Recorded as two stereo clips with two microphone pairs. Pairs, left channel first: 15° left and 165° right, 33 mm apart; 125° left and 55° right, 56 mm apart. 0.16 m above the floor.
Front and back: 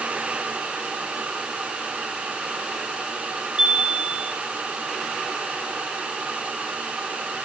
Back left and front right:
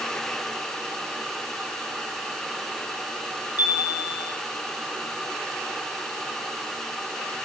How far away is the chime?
About 2 m.